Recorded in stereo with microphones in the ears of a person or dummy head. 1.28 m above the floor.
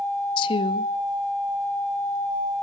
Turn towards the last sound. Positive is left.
turn(degrees=25)  # may be behind; listen again after turning